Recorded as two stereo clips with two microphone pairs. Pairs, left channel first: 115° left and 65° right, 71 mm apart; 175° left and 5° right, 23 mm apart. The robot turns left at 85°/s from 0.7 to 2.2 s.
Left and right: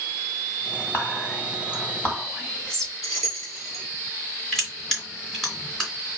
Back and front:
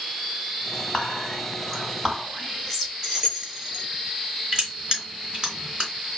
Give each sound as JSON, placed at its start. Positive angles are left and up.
{"t": 0.9, "sound": "whispering", "azimuth_deg": 150, "distance_m": 1.6}
{"t": 3.0, "sound": "keys jangling", "azimuth_deg": 65, "distance_m": 3.0}
{"t": 4.5, "sound": "crushing", "azimuth_deg": 35, "distance_m": 2.0}